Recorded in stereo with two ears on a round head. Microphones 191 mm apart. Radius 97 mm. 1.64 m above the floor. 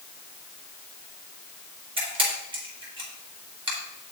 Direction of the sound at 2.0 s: 25° right (ahead or behind).